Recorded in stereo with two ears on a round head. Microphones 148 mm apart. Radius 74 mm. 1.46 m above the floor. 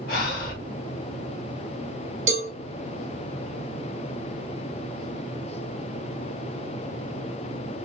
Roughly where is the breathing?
Left.